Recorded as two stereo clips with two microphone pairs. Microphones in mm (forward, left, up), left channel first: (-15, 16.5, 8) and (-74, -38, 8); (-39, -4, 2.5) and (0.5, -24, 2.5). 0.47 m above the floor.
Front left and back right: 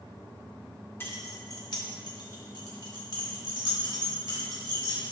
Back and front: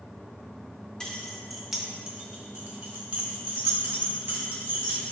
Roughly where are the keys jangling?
Left.